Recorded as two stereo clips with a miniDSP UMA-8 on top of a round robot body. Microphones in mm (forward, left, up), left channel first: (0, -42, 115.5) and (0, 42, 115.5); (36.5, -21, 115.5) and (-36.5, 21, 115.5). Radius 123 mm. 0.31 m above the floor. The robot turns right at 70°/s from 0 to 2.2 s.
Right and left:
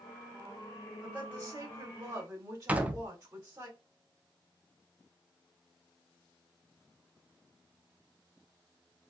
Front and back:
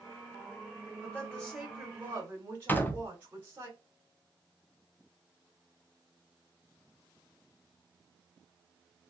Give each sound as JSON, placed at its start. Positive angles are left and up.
{"t": 1.0, "sound": "a woman speaking", "azimuth_deg": 25, "distance_m": 1.7}
{"t": 2.7, "sound": "a door slam", "azimuth_deg": 25, "distance_m": 0.7}